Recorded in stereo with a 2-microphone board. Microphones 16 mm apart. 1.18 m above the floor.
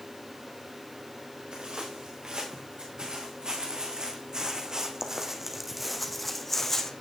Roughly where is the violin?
I don't hear a violin.